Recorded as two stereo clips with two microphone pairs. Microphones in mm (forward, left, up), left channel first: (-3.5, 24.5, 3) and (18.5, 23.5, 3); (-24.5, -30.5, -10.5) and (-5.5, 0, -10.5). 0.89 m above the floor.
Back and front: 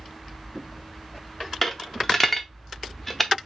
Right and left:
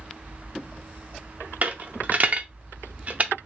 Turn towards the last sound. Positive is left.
turn(degrees=95)